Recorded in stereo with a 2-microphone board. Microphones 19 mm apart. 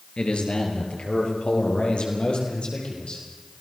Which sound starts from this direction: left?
A man speaking, at 0.2 s.